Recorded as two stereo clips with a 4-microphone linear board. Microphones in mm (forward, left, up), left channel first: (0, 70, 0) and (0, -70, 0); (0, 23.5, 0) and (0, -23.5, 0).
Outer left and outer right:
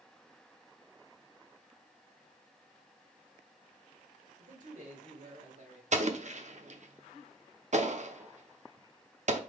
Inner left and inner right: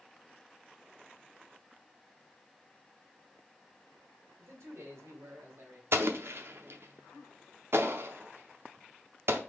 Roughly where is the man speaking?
Right.